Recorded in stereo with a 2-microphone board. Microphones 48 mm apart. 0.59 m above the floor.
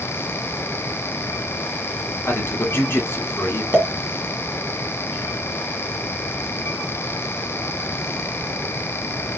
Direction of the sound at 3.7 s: 25° right (ahead or behind).